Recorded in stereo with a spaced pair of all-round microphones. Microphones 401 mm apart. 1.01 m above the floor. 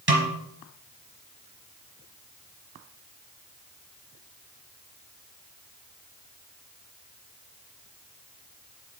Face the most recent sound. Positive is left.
turn(degrees=-70)  # may be behind; listen again after turning